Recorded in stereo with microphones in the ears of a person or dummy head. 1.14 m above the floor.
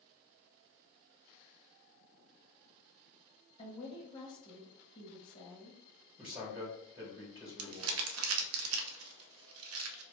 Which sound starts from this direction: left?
A woman speaking, at 3.6 s.